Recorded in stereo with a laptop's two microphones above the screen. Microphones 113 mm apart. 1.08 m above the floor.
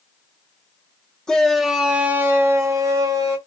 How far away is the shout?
About 0.8 m.